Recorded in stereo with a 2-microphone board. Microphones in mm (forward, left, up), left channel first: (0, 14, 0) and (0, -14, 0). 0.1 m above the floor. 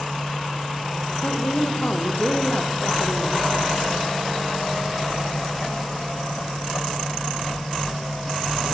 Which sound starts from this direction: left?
A woman speaking, at 1.2 s.